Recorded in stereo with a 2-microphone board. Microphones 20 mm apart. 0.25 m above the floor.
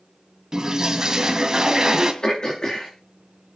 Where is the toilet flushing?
30° right (ahead or behind), 2.5 m.